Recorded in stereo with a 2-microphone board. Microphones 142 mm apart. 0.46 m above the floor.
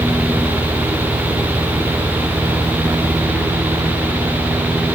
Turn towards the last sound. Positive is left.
No sound to turn to.